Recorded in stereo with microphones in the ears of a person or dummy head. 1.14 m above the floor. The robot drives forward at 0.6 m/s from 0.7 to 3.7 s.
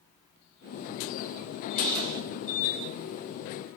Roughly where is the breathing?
Right.